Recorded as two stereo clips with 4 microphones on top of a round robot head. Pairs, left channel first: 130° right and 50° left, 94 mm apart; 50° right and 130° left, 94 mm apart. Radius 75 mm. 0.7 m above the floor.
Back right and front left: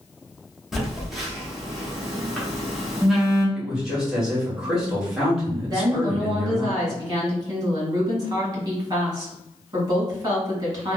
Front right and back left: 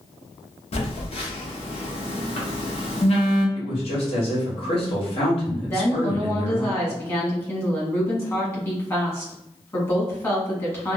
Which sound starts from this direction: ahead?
A woman speaking, at 5.7 s.